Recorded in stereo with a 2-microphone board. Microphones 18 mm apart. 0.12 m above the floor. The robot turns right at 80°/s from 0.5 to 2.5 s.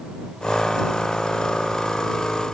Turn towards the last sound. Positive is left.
No sound to turn to.